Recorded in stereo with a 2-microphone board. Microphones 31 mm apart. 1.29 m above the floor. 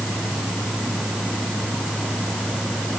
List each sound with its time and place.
Only background noise.